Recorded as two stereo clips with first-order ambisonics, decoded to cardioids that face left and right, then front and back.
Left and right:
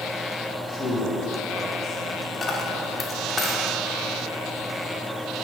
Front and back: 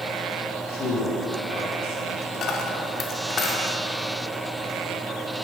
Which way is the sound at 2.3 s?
30° left.